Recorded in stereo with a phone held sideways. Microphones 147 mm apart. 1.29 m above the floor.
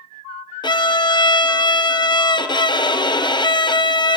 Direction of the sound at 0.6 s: 35° left (ahead or behind).